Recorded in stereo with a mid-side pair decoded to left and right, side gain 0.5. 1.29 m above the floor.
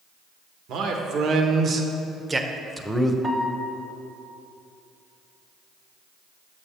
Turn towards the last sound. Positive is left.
turn(degrees=-20)